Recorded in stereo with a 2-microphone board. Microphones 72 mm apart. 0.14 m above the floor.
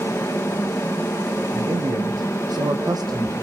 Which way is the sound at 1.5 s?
80° right.